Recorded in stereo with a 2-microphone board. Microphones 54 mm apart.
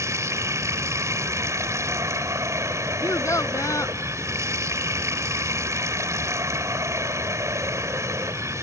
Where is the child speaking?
65° left (ahead or behind).